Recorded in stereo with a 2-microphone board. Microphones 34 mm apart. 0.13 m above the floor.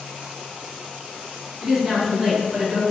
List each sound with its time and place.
1.6 s a woman speaking: 15° right (ahead or behind), 1.3 m